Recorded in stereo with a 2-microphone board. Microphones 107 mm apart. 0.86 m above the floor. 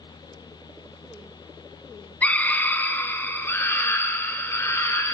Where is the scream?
15° left (ahead or behind), 1.8 m; by 5.2 s 25° left (ahead or behind), 4 m.